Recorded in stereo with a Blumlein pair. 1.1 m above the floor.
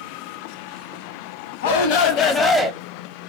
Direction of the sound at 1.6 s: 55° left.